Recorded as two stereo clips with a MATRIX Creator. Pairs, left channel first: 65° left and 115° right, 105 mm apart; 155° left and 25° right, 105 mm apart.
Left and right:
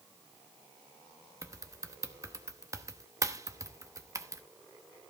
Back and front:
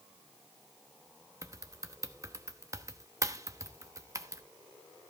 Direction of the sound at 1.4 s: 65° right.